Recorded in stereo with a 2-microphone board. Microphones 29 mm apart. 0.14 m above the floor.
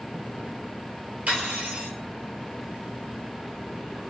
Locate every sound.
1.3 s cutlery clinking: 55° right (ahead or behind), 1.9 m